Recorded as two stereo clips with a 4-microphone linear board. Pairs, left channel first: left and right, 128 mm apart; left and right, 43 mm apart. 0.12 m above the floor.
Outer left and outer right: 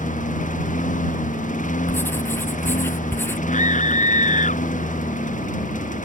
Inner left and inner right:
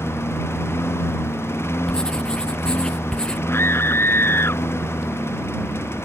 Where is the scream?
70° left (ahead or behind).